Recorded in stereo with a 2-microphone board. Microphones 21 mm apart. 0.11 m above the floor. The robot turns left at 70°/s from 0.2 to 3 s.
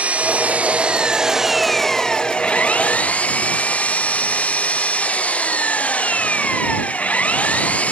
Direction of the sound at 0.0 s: 75° right.